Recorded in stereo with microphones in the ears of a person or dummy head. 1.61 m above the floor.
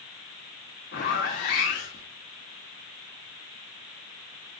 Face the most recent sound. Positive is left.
turn(degrees=40)  # may be behind; listen again after turning